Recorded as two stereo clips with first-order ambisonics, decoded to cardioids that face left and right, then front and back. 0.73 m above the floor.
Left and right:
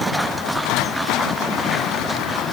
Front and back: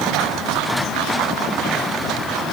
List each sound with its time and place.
Only background noise.